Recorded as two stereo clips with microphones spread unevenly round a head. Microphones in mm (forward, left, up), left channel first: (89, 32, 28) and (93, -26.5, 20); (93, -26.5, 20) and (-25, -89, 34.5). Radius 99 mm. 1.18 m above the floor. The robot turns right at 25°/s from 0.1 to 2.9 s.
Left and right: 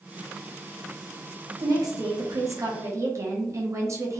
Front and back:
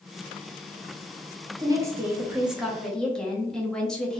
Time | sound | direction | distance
1.6 | a woman speaking | 90° right | 1.0 m